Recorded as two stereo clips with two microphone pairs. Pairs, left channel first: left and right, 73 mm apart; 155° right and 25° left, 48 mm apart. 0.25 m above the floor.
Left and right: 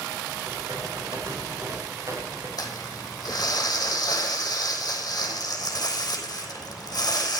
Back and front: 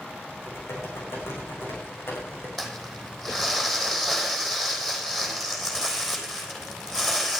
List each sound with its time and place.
0.4 s typing on a keyboard: 130° right, 7 m
2.6 s crumpling: 130° left, 3.5 m